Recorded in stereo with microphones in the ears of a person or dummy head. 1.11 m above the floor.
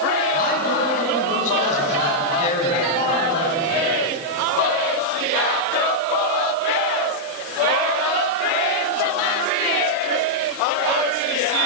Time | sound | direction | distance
0.3 | a man speaking | 40° left (ahead or behind) | 9.5 m